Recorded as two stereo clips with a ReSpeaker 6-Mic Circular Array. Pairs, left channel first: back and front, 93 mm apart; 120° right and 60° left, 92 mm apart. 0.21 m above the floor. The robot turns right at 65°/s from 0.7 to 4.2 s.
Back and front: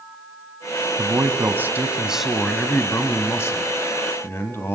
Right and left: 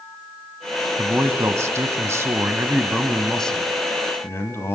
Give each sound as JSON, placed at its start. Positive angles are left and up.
{"t": 1.0, "sound": "a man speaking", "azimuth_deg": 0, "distance_m": 1.3}